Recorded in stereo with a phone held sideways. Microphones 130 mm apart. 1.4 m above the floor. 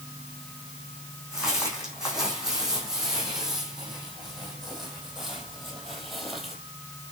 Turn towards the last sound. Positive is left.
turn(degrees=0)  # may be behind; listen again after turning